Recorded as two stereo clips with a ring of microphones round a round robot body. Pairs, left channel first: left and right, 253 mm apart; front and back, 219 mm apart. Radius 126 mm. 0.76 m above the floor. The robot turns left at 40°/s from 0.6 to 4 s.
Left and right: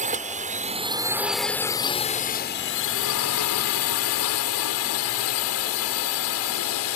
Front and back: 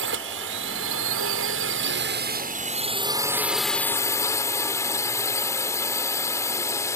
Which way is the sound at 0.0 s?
150° right.